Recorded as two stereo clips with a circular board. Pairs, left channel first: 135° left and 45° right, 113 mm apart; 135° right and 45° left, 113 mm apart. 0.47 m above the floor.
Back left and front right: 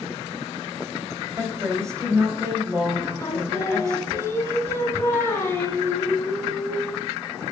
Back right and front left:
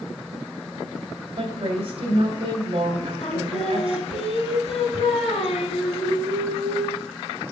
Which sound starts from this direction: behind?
Singing, at 3.2 s.